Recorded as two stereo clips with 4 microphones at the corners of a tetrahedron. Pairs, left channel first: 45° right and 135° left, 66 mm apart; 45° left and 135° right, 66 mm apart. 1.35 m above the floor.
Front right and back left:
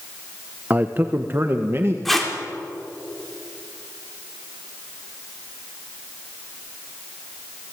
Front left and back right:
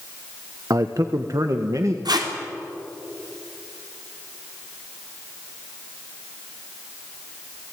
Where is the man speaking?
165° right, 1.1 m; by 1.9 s 175° right, 1.8 m.